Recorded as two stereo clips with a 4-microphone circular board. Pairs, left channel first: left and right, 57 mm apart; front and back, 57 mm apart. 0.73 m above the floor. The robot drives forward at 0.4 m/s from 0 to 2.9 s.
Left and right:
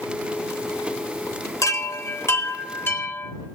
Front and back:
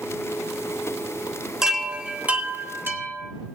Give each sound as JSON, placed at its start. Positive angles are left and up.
{"t": 1.6, "sound": "a chime", "azimuth_deg": 100, "distance_m": 0.8}